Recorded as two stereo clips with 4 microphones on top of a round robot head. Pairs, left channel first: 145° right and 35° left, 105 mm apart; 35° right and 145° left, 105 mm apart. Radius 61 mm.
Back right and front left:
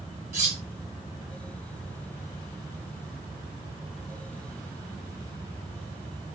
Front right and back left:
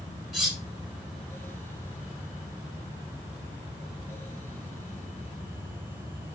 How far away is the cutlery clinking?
About 1.4 m.